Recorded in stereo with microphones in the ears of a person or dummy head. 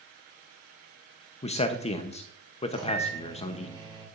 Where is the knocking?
No knocking in this recording.